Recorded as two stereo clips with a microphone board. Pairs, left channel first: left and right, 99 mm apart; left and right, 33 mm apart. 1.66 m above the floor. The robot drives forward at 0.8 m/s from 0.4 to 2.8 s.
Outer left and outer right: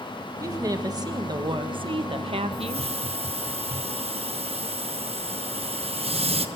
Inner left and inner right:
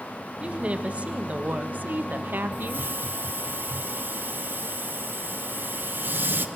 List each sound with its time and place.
0.4 s a woman speaking: 35° right (ahead or behind), 2.5 m; by 2.9 s 80° right, 1.4 m
2.5 s a hiss: 85° right, 1.2 m